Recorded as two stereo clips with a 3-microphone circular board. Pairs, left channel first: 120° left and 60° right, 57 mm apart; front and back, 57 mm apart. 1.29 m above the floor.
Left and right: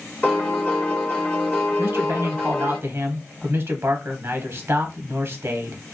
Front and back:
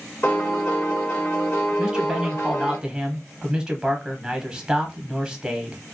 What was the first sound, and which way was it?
A piano, 60° left.